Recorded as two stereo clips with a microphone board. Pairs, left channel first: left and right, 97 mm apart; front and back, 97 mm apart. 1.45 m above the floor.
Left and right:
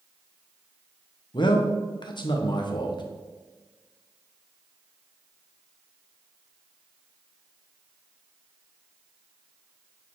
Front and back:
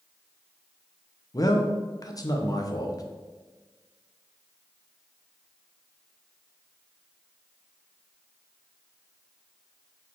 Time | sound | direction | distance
1.3 | a man speaking | 50° left | 1.0 m